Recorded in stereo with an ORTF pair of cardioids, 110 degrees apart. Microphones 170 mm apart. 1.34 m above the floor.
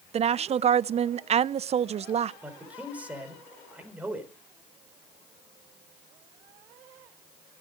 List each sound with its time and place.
0.1 s a woman speaking: 35° right, 0.7 m
2.4 s a man speaking: 10° right, 4.5 m